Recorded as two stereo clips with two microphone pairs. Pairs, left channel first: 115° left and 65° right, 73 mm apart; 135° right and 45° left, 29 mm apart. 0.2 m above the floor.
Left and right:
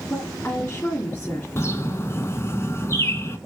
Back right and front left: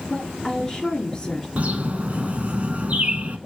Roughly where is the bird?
Left.